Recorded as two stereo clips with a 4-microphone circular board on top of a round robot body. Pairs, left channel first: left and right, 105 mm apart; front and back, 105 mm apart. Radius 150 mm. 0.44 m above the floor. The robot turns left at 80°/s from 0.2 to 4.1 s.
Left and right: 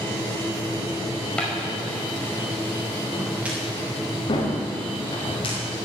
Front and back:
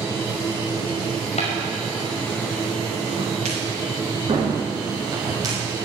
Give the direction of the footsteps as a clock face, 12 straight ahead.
12 o'clock.